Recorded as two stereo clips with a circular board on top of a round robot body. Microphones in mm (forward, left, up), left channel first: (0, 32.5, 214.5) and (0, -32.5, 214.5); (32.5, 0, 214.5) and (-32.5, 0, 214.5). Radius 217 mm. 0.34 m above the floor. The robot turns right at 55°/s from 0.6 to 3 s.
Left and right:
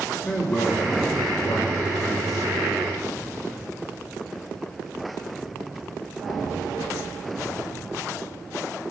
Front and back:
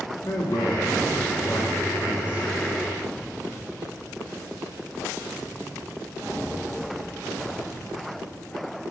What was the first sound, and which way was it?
A man speaking, 25° left.